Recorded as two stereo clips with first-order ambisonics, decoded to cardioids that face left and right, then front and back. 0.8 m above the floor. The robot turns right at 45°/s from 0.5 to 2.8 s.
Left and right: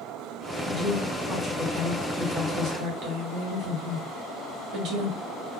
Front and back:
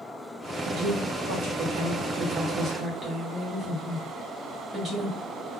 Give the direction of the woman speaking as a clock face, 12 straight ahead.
7 o'clock.